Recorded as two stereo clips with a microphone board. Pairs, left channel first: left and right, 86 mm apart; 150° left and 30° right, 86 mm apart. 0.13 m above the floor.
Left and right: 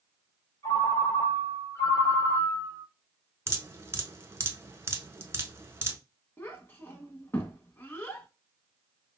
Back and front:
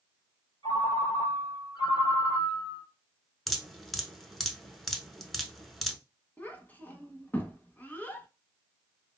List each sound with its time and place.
0.6 s a ringtone: 140° left, 1.7 m
3.5 s dripping: 125° right, 0.6 m
6.4 s a child speaking: 105° left, 0.7 m